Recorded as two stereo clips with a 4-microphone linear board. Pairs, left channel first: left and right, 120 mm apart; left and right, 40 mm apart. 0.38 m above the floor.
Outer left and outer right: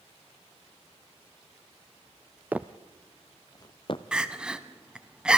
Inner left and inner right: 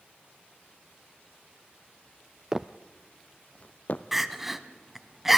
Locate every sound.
2.5 s footsteps: 15° right (ahead or behind), 0.6 m; by 4.0 s 50° left (ahead or behind), 0.9 m
4.1 s crying: 5° right (ahead or behind), 0.8 m